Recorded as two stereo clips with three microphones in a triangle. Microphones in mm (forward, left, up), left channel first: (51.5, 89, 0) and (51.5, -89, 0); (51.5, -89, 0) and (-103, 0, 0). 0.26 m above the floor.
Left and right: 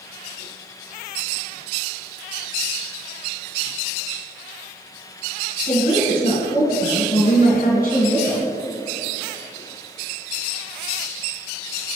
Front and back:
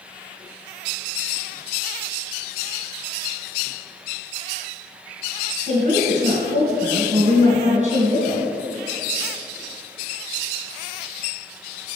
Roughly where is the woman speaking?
Left.